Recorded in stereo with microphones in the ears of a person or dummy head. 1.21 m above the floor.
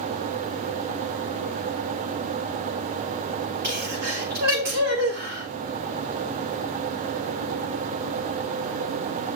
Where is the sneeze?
45° right (ahead or behind), 6 m.